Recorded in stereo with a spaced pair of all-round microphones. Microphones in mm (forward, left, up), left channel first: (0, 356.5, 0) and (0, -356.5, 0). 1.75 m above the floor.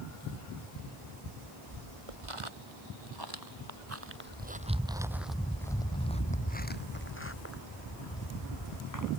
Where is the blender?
No blender in this recording.